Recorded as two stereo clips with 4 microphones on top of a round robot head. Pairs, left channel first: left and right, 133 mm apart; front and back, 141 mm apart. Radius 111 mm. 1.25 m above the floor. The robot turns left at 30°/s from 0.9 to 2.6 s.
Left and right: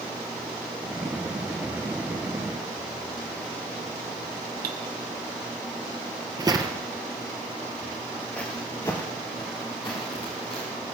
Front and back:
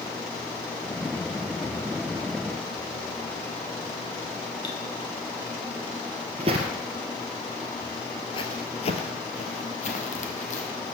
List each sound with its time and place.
4.6 s cutlery clinking: 70° right, 1.1 m
6.4 s footsteps: 135° right, 1.5 m; by 10.7 s 25° left, 3 m